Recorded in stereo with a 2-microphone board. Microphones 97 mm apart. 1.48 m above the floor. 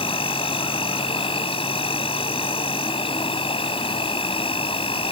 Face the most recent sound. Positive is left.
turn(degrees=75)  # may be behind; listen again after turning